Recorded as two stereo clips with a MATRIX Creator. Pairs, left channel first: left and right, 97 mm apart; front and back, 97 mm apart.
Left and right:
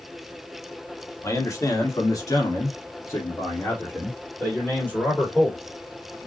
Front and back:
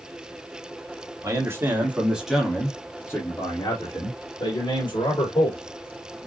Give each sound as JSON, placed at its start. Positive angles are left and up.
{"t": 1.2, "sound": "a man speaking", "azimuth_deg": 135, "distance_m": 1.7}